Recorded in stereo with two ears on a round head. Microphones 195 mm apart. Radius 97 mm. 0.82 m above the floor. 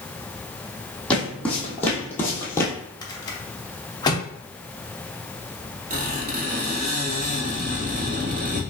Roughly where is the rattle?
Centre.